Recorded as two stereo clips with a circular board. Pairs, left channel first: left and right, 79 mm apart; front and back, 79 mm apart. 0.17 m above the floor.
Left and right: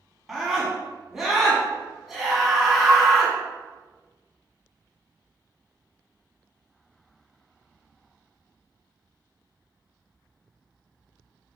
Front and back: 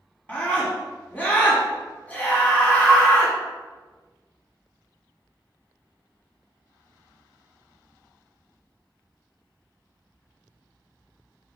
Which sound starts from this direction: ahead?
A scream, at 0.3 s.